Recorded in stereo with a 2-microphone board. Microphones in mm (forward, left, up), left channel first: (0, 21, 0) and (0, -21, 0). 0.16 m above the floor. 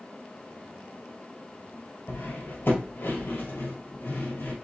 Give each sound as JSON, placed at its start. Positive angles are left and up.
{"t": 2.1, "sound": "cutlery clinking", "side_deg": 55, "distance_m": 1.8}